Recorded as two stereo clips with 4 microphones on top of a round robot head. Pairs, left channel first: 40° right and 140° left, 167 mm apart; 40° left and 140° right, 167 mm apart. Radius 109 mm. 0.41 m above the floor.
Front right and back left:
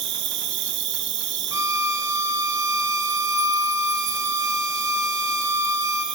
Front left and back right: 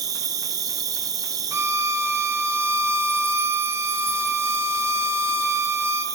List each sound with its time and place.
0.0 s an insect: 150° left, 1.0 m
1.5 s a violin: 170° left, 0.8 m